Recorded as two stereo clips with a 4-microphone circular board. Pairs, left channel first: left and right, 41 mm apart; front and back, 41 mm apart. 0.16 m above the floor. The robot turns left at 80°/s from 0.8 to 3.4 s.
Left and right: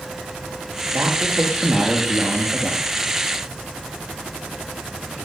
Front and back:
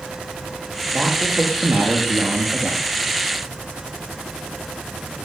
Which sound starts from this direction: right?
A man speaking, at 0.9 s.